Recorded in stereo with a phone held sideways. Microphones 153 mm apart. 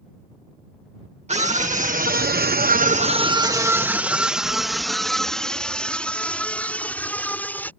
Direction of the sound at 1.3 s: 45° right (ahead or behind).